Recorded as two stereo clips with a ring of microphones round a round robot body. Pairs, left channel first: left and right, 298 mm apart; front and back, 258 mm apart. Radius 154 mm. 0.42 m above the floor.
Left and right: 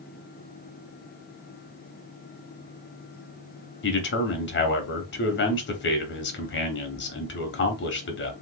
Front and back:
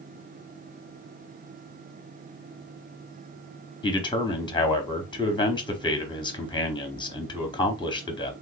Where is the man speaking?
65° left, 1.0 m.